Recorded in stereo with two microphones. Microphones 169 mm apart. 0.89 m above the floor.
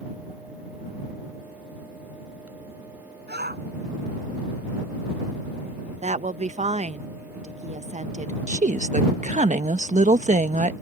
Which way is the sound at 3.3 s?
75° right (ahead or behind).